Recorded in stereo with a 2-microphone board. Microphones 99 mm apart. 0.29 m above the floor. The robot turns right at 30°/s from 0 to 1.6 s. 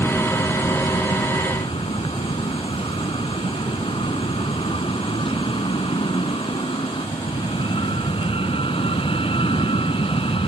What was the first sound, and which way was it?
An aircraft, 30° left.